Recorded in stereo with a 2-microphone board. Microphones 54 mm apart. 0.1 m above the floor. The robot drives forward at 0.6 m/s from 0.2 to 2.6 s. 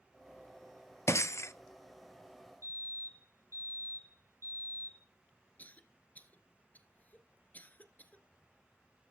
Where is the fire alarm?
60° left (ahead or behind), 5 m.